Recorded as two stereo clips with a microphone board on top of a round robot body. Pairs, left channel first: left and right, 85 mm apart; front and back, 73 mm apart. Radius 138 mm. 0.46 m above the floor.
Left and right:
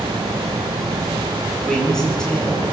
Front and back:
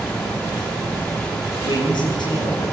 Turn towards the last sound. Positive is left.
turn(degrees=10)